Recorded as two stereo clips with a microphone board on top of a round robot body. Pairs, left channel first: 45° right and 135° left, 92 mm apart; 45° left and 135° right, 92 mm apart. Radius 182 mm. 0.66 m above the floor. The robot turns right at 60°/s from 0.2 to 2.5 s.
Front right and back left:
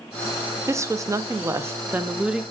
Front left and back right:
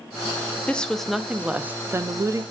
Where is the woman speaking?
110° left, 0.5 m; by 2.4 s 145° right, 0.5 m.